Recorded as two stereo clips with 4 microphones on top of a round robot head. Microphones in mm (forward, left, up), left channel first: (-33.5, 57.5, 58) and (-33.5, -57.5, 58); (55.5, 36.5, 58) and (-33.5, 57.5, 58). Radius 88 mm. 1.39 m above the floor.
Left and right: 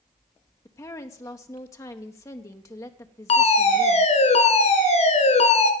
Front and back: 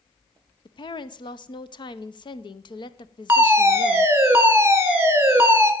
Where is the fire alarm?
100° left, 2 m.